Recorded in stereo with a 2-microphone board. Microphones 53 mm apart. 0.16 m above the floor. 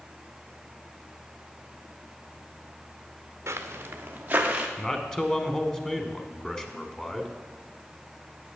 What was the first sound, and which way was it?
Footsteps, 55° right (ahead or behind).